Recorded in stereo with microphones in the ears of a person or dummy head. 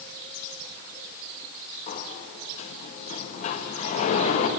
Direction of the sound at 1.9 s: 40° left (ahead or behind).